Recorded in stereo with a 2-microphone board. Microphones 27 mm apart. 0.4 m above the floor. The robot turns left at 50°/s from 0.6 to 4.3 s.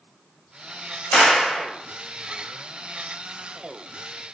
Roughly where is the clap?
Left.